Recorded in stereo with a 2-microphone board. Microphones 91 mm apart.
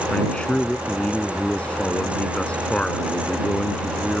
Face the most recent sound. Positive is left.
turn(degrees=10)  # may be behind; listen again after turning